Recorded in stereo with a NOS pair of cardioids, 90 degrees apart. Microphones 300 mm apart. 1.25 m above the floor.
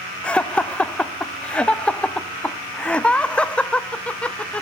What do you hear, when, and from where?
0.2 s laughter: 5° left, 0.5 m